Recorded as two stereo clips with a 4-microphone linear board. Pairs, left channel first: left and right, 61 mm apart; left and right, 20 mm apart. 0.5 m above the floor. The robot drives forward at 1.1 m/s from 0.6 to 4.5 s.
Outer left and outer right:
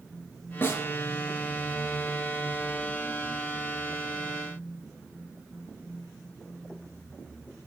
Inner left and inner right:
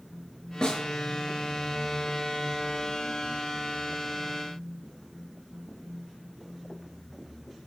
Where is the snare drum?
35° left (ahead or behind), 4 m; by 0.8 s 40° left (ahead or behind), 3.5 m.